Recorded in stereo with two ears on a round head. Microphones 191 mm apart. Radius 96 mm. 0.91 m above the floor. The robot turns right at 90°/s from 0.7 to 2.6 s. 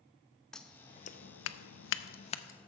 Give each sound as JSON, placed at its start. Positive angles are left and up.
{"t": 0.5, "sound": "scissors", "side_deg": 5, "distance_m": 0.5}